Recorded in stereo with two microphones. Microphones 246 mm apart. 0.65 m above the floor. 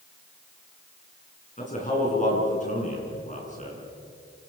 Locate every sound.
1.6 s a man speaking: 30° left (ahead or behind), 8.5 m